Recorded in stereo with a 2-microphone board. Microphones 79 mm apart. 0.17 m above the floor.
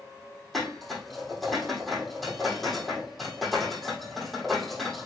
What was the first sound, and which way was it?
Dishes clattering, centre (ahead or behind).